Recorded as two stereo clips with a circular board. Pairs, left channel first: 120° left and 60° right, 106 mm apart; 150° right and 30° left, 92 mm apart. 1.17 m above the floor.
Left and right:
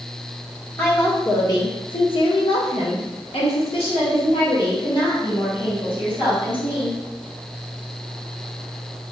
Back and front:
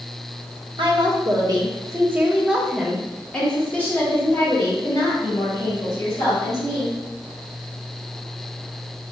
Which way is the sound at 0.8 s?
55° left.